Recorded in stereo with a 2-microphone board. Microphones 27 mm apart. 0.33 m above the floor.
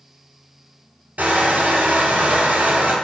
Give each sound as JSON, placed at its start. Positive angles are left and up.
{"t": 1.2, "sound": "crushing", "side_deg": -80, "distance_m": 1.2}